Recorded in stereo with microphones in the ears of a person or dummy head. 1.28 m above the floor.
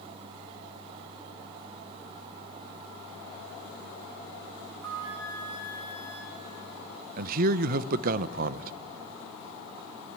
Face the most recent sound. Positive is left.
turn(degrees=-50)  # may be behind; listen again after turning